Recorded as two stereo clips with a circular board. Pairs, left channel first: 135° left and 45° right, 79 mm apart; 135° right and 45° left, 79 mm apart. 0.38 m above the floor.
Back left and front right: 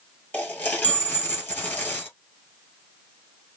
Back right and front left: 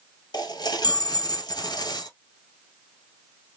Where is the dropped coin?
160° right, 1.5 m.